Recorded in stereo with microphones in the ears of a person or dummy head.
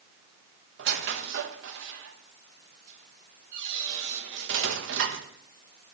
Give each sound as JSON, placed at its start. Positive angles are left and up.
{"t": 0.8, "sound": "a squeak", "side_deg": -65, "distance_m": 1.1}